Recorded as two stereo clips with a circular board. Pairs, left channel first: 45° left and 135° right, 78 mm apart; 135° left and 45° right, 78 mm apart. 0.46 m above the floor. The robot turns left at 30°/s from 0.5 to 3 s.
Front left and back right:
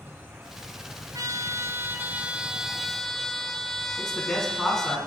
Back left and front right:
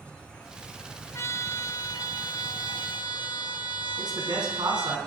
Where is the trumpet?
170° right, 0.6 m; by 5.0 s 130° left, 0.6 m.